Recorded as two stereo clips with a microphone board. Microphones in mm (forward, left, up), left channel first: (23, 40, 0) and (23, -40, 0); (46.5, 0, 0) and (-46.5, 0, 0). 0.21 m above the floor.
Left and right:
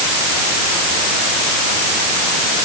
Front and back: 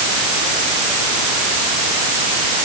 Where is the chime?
No chime in this recording.